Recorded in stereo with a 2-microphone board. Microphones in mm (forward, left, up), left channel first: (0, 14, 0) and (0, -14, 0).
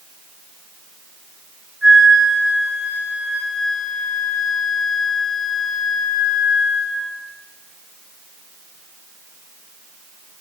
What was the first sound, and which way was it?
A flute, 10° right (ahead or behind).